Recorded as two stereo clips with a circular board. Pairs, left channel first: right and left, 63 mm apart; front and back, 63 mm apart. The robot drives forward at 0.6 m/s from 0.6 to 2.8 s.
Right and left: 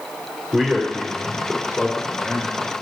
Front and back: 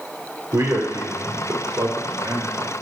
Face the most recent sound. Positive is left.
turn(degrees=160)